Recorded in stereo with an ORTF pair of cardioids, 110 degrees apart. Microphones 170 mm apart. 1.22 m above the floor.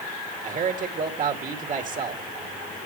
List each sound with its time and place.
0.4 s a man speaking: 50° right, 2.5 m